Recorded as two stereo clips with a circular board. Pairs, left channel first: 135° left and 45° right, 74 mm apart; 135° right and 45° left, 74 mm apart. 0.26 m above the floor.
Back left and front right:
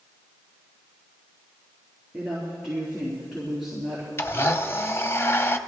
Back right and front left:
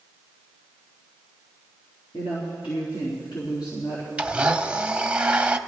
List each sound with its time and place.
2.1 s a woman speaking: 130° right, 4 m
4.2 s a blender: 110° left, 0.7 m